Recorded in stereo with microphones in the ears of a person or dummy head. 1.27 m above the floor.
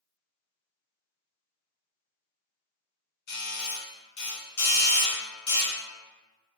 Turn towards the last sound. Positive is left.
turn(degrees=60)  # may be behind; listen again after turning